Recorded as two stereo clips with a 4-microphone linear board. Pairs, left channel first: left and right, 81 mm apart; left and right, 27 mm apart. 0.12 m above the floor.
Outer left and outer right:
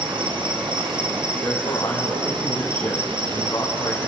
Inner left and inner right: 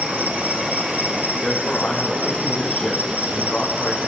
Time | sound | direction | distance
0.0 | an insect | 85° right | 2.0 m
1.4 | a man speaking | 45° left (ahead or behind) | 5 m